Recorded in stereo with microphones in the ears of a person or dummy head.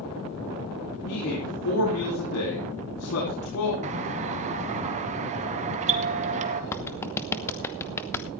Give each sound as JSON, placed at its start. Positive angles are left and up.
{"t": 1.1, "sound": "a man speaking", "side_deg": 70, "distance_m": 4.5}
{"t": 3.8, "sound": "a doorbell", "side_deg": -35, "distance_m": 1.8}
{"t": 6.7, "sound": "a clap", "side_deg": 15, "distance_m": 1.0}